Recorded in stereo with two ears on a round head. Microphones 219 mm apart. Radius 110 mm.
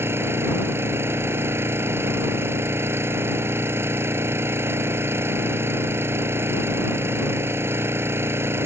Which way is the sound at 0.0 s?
10° right (ahead or behind).